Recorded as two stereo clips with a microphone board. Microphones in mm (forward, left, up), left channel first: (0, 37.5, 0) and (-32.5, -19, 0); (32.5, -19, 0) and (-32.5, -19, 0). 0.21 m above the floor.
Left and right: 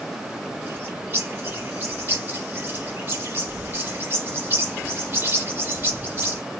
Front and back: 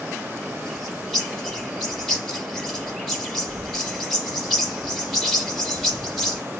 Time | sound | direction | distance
0.7 | a bird | 85° right | 1.0 m